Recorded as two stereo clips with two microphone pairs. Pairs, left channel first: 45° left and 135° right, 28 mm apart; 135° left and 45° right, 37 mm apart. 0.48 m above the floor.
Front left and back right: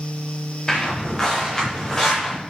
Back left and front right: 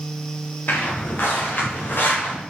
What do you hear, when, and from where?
0.7 s footsteps: 105° left, 5 m; by 2.4 s 115° left, 4.5 m